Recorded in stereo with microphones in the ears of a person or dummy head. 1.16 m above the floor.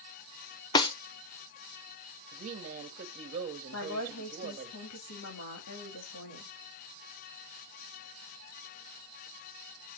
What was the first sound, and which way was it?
A snare drum, 20° left (ahead or behind).